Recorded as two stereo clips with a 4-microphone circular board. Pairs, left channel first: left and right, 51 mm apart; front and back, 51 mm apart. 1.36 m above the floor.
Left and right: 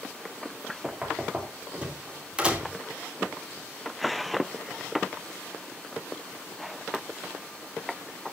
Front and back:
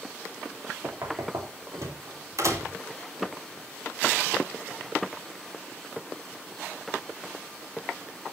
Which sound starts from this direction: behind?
Knocking, at 0.8 s.